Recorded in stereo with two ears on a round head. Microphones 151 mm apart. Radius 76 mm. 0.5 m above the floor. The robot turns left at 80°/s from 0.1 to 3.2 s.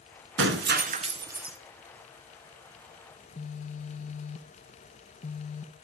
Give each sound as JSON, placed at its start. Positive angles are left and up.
{"t": 0.4, "sound": "breaking glass", "azimuth_deg": -85, "distance_m": 1.9}
{"t": 3.2, "sound": "a phone buzzing", "side_deg": 45, "distance_m": 1.2}